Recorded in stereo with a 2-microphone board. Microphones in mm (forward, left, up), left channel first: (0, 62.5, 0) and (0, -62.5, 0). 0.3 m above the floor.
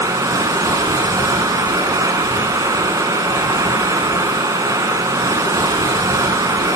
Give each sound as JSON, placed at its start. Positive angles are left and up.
{"t": 0.0, "sound": "running water", "side_deg": -30, "distance_m": 0.8}